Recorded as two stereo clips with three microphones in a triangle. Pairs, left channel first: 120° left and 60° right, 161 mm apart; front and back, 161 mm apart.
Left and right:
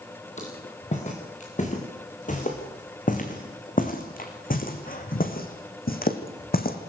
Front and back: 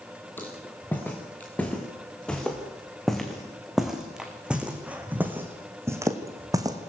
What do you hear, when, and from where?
0.4 s footsteps: 75° left, 6 m; by 6.8 s 115° left, 3.5 m